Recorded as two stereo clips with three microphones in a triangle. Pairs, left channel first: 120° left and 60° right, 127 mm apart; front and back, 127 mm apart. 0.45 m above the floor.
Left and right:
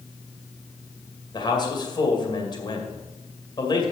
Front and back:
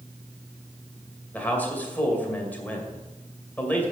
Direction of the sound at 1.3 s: 75° left.